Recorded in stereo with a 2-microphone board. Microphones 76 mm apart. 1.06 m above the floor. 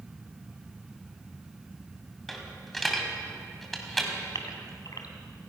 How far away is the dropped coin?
About 3 m.